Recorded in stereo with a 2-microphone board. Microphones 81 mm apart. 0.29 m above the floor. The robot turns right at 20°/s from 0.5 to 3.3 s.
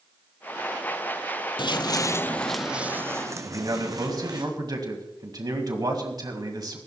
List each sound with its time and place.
1.6 s footsteps: 70° left (ahead or behind), 0.6 m; by 4.4 s 50° right (ahead or behind), 1.7 m
3.4 s a man speaking: 50° right (ahead or behind), 2 m